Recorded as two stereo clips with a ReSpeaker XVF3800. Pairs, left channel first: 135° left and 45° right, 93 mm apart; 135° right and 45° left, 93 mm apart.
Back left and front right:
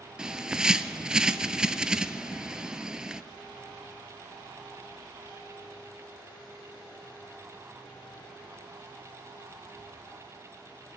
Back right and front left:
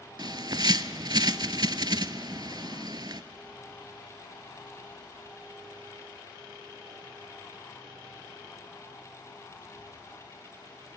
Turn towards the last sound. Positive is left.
turn(degrees=35)